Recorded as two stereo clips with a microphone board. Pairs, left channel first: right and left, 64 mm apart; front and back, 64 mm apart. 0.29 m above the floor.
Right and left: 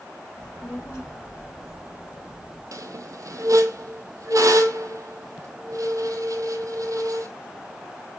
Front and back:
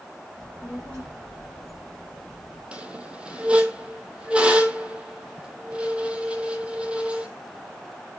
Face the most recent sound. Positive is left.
turn(degrees=110)